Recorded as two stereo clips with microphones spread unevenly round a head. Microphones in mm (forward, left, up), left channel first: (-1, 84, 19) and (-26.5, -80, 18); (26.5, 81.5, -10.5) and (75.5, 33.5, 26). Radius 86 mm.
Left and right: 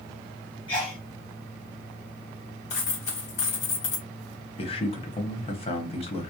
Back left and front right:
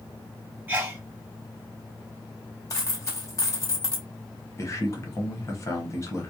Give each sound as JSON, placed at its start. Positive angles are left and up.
{"t": 0.7, "sound": "a sneeze", "azimuth_deg": 15, "distance_m": 1.1}
{"t": 2.7, "sound": "a dropped coin", "azimuth_deg": 75, "distance_m": 1.2}
{"t": 4.6, "sound": "a man speaking", "azimuth_deg": 135, "distance_m": 0.9}